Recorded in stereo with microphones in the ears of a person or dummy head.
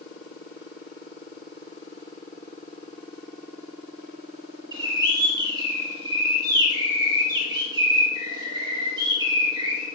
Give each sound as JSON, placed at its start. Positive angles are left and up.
{"t": 4.7, "sound": "a bird", "side_deg": -20, "distance_m": 3.0}